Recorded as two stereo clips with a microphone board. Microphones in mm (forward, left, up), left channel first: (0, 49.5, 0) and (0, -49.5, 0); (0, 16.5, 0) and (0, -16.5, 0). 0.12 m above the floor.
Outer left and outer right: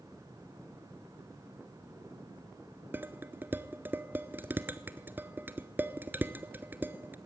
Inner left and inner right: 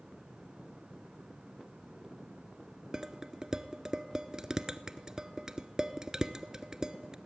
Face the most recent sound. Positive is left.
turn(degrees=-20)  # may be behind; listen again after turning